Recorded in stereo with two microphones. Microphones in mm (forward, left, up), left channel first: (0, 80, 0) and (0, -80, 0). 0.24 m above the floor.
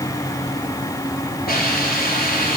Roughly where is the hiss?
Left.